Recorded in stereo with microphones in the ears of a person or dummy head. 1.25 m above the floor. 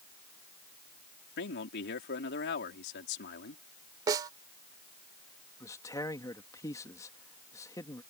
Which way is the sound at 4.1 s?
20° right (ahead or behind).